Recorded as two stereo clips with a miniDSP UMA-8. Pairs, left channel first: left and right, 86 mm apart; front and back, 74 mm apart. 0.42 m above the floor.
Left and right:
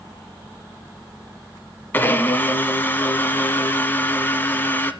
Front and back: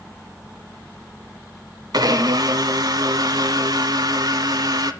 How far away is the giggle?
No giggle in this recording.